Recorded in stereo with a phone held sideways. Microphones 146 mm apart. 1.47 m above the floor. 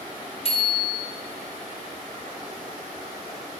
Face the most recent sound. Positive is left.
turn(degrees=40)  # may be behind; listen again after turning